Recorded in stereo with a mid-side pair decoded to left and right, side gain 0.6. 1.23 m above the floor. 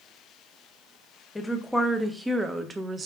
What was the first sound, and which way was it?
A woman speaking, 15° left.